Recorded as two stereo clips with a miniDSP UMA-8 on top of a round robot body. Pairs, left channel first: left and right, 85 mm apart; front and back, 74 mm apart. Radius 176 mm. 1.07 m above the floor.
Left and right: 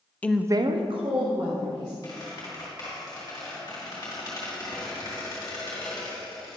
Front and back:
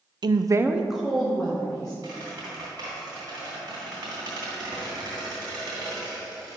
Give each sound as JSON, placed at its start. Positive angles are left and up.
{"t": 0.2, "sound": "a woman speaking", "azimuth_deg": 160, "distance_m": 0.5}
{"t": 2.0, "sound": "a squeak", "azimuth_deg": 140, "distance_m": 1.6}